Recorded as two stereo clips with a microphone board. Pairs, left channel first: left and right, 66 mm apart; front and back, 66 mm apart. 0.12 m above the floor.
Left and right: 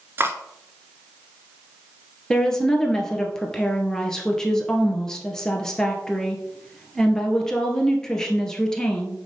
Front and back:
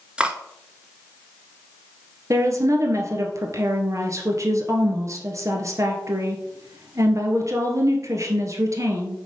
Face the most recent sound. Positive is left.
turn(degrees=170)